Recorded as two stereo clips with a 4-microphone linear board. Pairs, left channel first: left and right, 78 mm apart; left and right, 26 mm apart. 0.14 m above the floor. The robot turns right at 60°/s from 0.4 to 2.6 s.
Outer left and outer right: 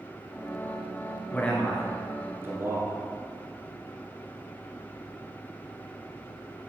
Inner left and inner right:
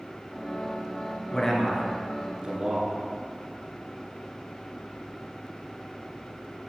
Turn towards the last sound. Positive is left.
turn(degrees=-35)  # may be behind; listen again after turning